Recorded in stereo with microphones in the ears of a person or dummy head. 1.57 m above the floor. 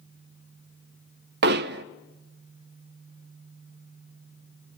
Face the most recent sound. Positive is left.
turn(degrees=-55)  # may be behind; listen again after turning